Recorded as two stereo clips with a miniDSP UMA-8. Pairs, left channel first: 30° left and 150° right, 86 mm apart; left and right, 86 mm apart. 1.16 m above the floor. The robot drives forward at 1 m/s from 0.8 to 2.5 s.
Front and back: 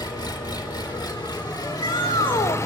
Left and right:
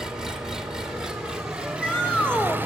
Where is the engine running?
10° right, 2.5 m; by 2.7 s 25° right, 0.9 m.